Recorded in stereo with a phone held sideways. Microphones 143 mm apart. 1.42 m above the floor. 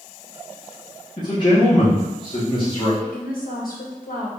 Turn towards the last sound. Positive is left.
turn(degrees=80)